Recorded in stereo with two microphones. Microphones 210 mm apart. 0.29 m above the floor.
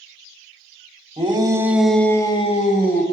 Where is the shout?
25° right (ahead or behind), 1.3 m; by 3.0 s 45° left (ahead or behind), 1.3 m.